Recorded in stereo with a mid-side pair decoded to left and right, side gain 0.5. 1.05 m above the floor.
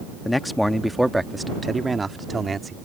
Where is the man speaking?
20° left; by 2.8 s 25° right.